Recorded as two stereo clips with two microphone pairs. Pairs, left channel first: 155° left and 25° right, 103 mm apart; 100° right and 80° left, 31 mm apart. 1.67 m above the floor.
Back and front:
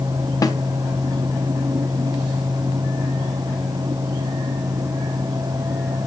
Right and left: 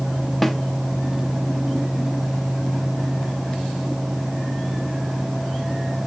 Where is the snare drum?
Straight behind, 0.9 m.